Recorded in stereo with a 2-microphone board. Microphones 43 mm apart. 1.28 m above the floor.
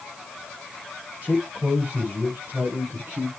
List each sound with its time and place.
1.2 s a man speaking: 30° right (ahead or behind), 6 m; by 3.3 s 45° right (ahead or behind), 4.5 m